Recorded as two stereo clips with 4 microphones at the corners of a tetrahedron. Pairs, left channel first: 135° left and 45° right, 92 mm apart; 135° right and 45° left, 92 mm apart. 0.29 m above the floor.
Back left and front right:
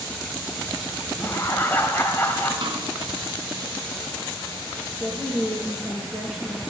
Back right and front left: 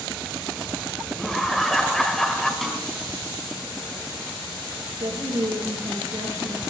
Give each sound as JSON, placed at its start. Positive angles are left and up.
{"t": 1.2, "sound": "laughter", "azimuth_deg": 145, "distance_m": 1.4}
{"t": 2.6, "sound": "a snare drum", "azimuth_deg": -45, "distance_m": 3.0}
{"t": 5.0, "sound": "a woman speaking", "azimuth_deg": 30, "distance_m": 6.0}